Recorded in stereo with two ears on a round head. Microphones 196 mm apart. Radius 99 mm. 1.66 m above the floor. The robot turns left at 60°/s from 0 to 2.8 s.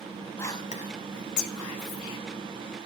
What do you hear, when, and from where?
0.4 s whispering: 10° left (ahead or behind), 1.3 m; by 2.2 s 60° left (ahead or behind), 1.3 m